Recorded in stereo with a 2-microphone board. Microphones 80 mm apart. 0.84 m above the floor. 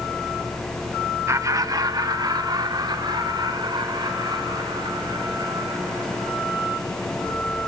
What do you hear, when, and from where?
1.3 s laughter: 40° right (ahead or behind), 0.8 m; by 6.6 s 70° right (ahead or behind), 6.5 m